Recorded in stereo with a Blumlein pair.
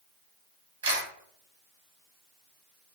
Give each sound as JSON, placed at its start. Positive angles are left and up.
{"t": 0.8, "sound": "a camera shutter", "azimuth_deg": -65, "distance_m": 1.0}